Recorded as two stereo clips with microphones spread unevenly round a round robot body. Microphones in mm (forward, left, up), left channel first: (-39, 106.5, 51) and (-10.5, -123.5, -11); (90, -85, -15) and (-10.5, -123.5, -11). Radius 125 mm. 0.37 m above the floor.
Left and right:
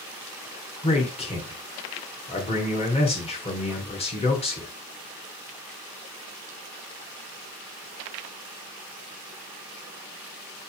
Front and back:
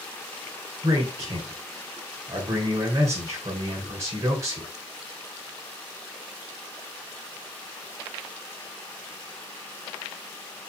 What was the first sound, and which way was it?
A man speaking, 165° left.